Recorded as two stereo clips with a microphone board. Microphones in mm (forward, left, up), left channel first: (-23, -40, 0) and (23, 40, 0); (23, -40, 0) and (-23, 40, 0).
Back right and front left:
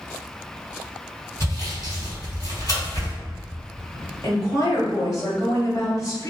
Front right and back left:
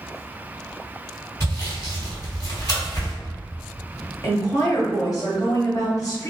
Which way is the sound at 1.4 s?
95° right.